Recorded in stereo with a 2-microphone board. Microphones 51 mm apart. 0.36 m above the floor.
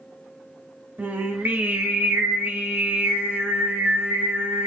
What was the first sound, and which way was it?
Singing, 40° right (ahead or behind).